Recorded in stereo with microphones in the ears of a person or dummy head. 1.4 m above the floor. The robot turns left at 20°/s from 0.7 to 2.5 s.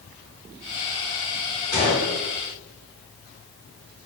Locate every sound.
1.7 s a gunshot: 20° left (ahead or behind), 1.1 m; by 2.2 s 25° left (ahead or behind), 1.1 m